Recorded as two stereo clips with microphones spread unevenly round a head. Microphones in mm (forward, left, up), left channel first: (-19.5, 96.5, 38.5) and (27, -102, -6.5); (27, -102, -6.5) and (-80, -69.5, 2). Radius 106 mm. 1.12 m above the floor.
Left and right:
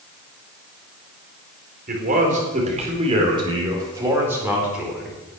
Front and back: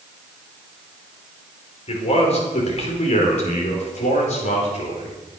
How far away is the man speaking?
About 4.5 m.